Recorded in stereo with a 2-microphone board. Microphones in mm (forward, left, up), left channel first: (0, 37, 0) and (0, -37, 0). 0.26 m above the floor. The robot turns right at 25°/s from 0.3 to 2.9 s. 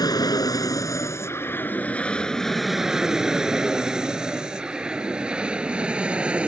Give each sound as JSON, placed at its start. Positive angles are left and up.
{"t": 0.0, "sound": "an aircraft", "side_deg": 60}